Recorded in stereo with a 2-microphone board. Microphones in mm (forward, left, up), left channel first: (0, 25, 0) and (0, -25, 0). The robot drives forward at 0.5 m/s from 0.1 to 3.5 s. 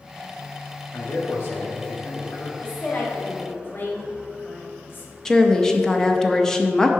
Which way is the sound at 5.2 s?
10° left (ahead or behind).